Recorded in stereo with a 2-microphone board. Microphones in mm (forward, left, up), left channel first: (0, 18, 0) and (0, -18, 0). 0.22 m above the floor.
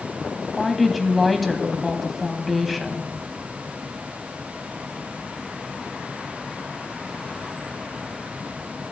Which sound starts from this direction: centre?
A woman speaking, at 0.4 s.